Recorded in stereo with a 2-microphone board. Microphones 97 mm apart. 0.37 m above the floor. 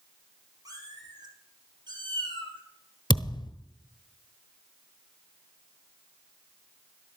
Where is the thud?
50° left (ahead or behind), 1.1 m.